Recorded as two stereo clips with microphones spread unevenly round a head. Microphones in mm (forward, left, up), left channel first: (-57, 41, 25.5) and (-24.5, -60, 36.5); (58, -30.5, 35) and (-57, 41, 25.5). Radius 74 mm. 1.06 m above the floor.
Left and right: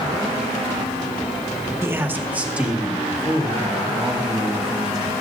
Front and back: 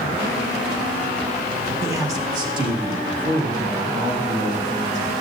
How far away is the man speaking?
About 1.1 m.